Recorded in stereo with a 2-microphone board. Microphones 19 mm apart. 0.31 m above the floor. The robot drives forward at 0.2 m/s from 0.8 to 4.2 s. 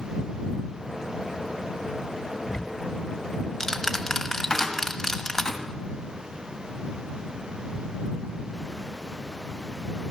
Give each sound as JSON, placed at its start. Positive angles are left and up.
{"t": 2.5, "sound": "ticking", "side_deg": 30, "distance_m": 1.1}
{"t": 4.5, "sound": "a cupboard door", "side_deg": 35, "distance_m": 2.5}